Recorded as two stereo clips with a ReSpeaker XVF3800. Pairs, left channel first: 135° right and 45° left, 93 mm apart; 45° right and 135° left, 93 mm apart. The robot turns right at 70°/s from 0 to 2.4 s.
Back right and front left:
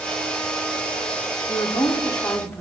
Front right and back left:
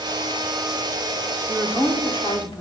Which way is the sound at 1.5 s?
130° right.